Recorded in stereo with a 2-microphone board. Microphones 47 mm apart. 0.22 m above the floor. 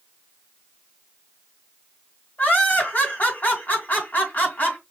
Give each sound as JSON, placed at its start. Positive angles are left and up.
{"t": 2.4, "sound": "laughter", "side_deg": 40, "distance_m": 2.0}